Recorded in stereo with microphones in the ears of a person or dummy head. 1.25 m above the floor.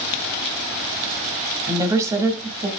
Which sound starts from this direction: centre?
A woman speaking, at 1.7 s.